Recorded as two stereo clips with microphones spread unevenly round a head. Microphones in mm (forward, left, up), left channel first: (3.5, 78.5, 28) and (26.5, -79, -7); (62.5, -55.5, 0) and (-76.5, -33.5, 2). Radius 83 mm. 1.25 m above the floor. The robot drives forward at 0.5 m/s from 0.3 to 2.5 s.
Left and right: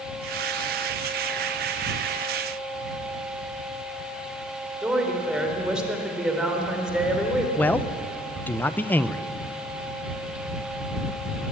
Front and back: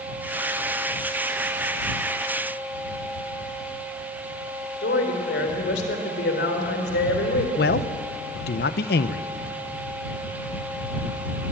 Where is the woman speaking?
5° left, 3.5 m.